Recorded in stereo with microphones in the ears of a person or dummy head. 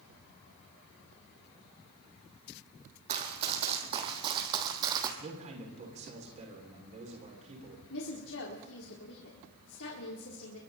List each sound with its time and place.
3.1 s running footsteps: 40° right (ahead or behind), 4 m; by 5.1 s 25° right (ahead or behind), 3 m
5.2 s a man speaking: 30° right (ahead or behind), 6.5 m
7.9 s a woman speaking: 80° left, 4 m